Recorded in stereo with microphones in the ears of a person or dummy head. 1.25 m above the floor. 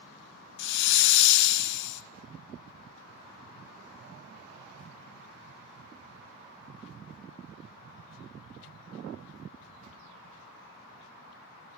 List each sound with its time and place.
0.6 s a hiss: 65° left (ahead or behind), 0.5 m